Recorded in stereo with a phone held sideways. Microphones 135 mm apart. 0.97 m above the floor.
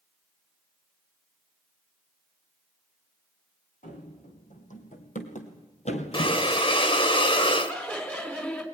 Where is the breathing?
40° left (ahead or behind), 1.2 m.